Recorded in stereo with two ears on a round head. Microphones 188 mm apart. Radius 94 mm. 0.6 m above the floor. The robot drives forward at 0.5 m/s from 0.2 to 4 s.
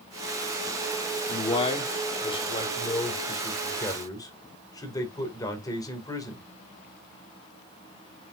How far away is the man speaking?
About 1.6 m.